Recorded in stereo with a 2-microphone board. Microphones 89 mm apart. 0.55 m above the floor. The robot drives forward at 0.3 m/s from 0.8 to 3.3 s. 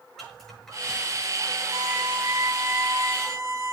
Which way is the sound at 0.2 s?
5° left (ahead or behind).